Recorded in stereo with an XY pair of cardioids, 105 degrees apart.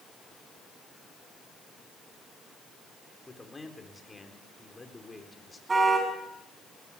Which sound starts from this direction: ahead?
A man speaking, at 3.3 s.